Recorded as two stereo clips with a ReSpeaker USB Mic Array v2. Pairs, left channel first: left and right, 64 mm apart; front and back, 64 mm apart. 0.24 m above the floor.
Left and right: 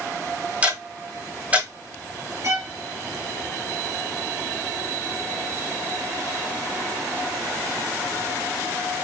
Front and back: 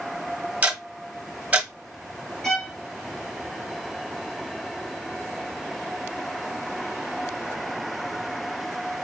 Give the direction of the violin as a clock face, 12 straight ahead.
3 o'clock.